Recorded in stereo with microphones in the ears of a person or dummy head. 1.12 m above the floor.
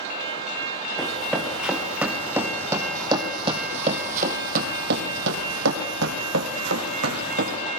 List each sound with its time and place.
1.0 s running footsteps: centre (ahead or behind), 5 m; by 7.6 s 55° right (ahead or behind), 4.5 m